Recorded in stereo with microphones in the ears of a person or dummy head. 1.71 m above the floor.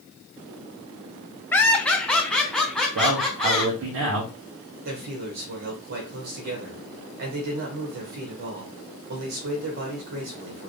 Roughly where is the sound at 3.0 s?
Right.